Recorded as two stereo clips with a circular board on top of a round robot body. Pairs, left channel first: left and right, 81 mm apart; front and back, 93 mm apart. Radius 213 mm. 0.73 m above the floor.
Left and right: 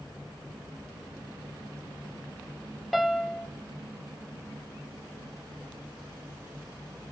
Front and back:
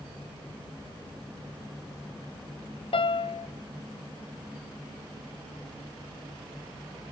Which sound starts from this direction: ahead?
A piano, at 2.9 s.